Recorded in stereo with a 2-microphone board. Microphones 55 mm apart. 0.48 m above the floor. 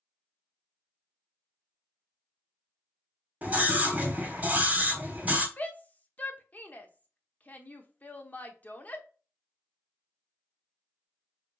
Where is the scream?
30° right (ahead or behind), 1.0 m.